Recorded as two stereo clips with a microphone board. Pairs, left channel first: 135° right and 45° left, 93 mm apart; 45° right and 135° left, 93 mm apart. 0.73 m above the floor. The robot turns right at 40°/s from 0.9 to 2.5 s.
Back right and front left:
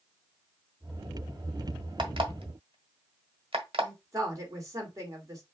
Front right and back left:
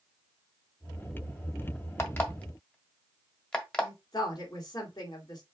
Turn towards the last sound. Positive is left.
turn(degrees=-5)